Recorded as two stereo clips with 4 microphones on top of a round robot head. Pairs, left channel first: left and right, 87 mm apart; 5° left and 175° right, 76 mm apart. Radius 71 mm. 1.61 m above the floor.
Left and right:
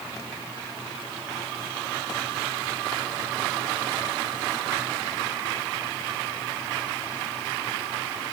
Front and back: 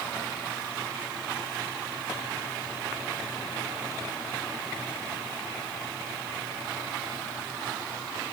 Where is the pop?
No pop in this recording.